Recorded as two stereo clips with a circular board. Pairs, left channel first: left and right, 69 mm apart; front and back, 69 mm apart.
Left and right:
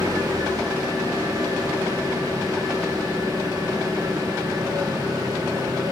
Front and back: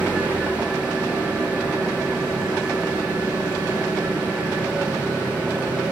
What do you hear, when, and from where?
0.0 s an engine running: 110° right, 8 m